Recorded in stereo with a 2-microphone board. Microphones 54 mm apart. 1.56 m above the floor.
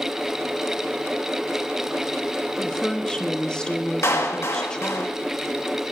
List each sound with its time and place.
2.6 s a woman speaking: 15° left (ahead or behind), 1.1 m
4.0 s a clap: 55° left (ahead or behind), 1.6 m